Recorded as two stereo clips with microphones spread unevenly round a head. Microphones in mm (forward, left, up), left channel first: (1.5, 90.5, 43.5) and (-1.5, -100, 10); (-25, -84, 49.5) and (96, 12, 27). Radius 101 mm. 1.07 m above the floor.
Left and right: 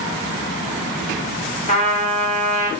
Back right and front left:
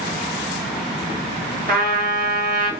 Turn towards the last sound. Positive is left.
turn(degrees=35)